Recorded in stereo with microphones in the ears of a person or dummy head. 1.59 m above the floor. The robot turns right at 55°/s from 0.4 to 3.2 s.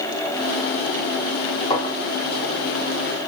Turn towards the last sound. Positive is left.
turn(degrees=60)  # may be behind; listen again after turning